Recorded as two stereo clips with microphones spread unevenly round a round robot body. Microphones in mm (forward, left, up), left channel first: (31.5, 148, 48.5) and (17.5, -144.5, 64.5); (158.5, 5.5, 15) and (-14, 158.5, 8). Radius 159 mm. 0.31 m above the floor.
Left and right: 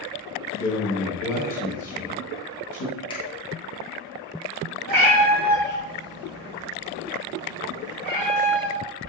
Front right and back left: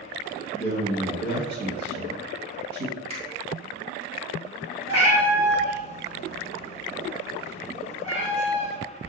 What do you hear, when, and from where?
0.6 s a man speaking: 115° left, 1.6 m
3.1 s a finger snap: 135° left, 1.0 m
4.9 s a cat meowing: 115° right, 1.4 m